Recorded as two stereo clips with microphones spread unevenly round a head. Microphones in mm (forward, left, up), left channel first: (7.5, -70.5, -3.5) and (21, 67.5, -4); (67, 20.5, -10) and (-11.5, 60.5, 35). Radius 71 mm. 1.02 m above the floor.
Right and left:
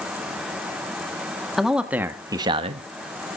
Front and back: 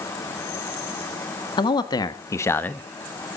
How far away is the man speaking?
About 1.6 m.